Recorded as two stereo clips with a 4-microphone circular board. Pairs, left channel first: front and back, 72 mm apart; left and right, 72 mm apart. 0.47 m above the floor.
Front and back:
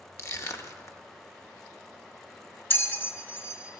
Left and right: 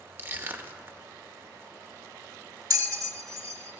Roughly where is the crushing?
Ahead right.